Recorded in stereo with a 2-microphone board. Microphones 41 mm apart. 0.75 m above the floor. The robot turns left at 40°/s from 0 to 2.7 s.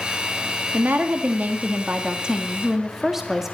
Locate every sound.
0.7 s a woman speaking: 90° right, 1.4 m; by 3.5 s 170° right, 1.4 m